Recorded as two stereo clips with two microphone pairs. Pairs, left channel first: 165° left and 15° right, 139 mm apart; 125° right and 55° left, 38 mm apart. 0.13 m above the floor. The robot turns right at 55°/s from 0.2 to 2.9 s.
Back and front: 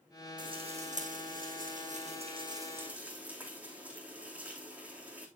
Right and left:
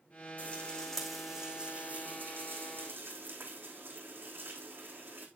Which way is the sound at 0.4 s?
75° right.